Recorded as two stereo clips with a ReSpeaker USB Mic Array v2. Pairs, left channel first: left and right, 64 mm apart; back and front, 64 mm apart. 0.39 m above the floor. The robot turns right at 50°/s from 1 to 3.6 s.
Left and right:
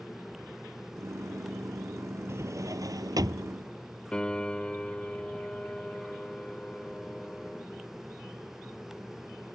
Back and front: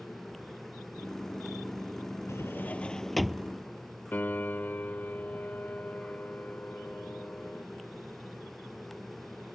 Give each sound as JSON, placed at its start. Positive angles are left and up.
{"t": 2.3, "sound": "a drawer", "azimuth_deg": -135}
{"t": 4.1, "sound": "a piano", "azimuth_deg": 150}